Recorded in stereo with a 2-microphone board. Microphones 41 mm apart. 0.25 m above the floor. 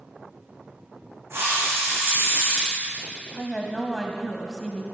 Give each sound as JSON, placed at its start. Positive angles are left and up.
{"t": 1.3, "sound": "a hiss", "side_deg": -85, "distance_m": 3.0}
{"t": 3.3, "sound": "a woman speaking", "side_deg": 10, "distance_m": 1.2}